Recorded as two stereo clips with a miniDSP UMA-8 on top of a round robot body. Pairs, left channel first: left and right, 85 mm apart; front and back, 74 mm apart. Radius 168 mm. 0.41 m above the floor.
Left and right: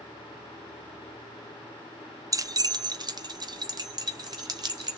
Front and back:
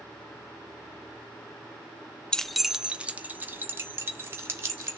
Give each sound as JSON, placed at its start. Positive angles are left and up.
{"t": 2.3, "sound": "keys jangling", "azimuth_deg": -75, "distance_m": 0.6}